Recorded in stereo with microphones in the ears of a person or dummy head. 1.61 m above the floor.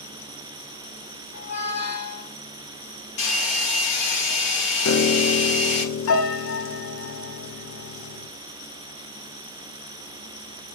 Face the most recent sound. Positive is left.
turn(degrees=80)